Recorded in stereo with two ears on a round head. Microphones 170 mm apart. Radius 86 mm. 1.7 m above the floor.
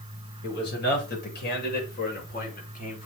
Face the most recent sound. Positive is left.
turn(degrees=45)  # may be behind; listen again after turning